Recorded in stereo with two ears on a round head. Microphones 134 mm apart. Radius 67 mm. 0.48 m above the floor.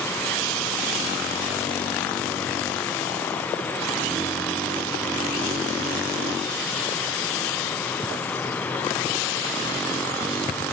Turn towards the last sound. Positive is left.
No sound to turn to.